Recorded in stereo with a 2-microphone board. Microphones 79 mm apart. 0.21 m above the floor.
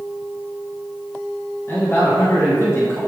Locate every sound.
1.7 s a man speaking: 35° left (ahead or behind), 1.7 m